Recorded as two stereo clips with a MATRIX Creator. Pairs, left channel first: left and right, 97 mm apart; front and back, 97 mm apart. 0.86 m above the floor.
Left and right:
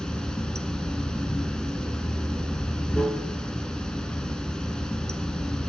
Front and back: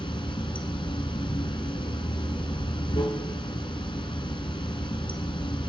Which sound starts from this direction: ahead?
Running water, at 0.0 s.